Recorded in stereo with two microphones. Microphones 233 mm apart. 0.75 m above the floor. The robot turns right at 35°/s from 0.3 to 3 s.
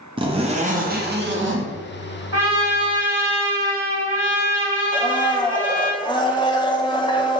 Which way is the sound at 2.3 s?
55° left (ahead or behind).